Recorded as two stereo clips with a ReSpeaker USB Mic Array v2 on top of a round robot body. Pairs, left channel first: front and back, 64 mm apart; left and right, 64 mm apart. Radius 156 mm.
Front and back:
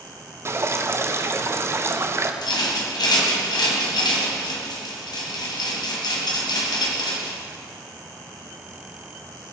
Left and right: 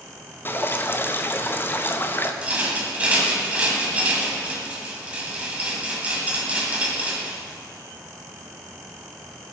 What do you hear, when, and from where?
0.5 s dripping: 140° left, 1.3 m
2.4 s a rattle: 20° right, 1.7 m